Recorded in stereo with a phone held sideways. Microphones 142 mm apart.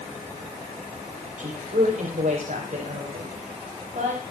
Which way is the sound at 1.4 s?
70° right (ahead or behind).